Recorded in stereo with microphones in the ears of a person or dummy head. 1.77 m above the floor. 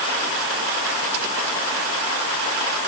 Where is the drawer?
No drawer in this recording.